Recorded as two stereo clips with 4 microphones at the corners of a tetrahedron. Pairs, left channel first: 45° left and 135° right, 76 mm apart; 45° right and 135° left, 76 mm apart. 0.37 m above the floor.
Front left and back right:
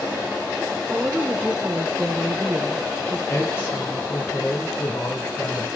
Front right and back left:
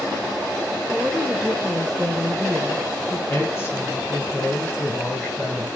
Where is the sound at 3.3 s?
5° right, 1.8 m.